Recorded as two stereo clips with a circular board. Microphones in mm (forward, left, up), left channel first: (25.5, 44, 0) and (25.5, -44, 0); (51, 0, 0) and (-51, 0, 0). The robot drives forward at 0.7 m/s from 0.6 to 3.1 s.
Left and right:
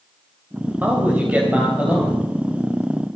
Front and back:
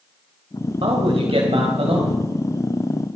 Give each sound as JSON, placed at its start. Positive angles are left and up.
{"t": 0.8, "sound": "a man speaking", "azimuth_deg": -160, "distance_m": 2.5}